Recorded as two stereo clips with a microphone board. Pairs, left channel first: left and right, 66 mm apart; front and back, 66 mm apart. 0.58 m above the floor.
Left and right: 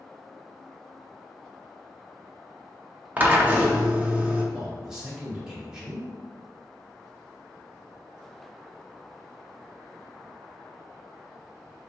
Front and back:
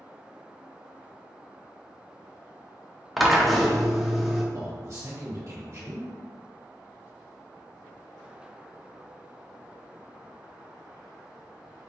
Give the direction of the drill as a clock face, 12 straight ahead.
3 o'clock.